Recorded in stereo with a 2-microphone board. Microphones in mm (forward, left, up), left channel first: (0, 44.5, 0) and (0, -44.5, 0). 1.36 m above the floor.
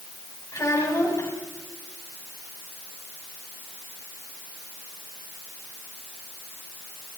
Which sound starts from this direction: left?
A child speaking, at 0.5 s.